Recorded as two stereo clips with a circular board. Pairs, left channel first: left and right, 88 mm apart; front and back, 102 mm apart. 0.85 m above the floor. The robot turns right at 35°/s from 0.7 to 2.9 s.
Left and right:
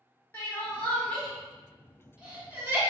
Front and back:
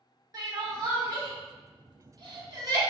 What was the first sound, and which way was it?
Crying, 145° left.